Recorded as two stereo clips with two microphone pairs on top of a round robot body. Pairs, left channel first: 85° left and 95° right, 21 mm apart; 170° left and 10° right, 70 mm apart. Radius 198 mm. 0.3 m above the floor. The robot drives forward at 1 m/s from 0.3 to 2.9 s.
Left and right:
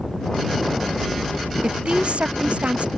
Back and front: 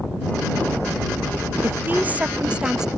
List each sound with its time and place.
1.6 s a woman speaking: 70° right; by 2.9 s 95° right